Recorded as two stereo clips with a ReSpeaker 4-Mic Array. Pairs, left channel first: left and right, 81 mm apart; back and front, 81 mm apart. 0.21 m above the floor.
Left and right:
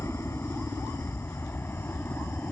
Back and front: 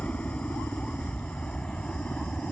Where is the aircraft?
120° left; by 2.5 s 115° left.